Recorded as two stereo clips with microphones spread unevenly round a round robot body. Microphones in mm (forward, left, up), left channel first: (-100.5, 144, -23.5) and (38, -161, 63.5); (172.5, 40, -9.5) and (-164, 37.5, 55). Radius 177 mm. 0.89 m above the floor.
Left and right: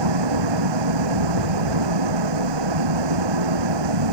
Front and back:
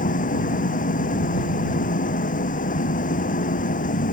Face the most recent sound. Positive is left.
turn(degrees=-70)